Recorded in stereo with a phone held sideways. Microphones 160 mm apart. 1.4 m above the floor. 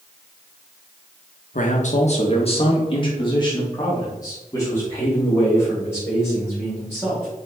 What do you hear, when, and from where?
1.5 s a man speaking: 60° left (ahead or behind), 1.3 m; by 7.3 s 15° left (ahead or behind), 5 m